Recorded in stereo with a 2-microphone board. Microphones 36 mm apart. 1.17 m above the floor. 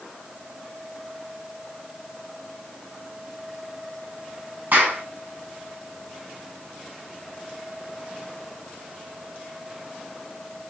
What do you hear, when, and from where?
4.7 s a clap: 65° right (ahead or behind), 9 m